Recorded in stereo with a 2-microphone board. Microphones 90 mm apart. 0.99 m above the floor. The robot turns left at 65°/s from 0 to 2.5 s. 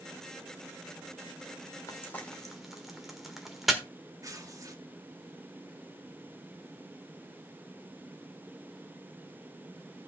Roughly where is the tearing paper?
Right.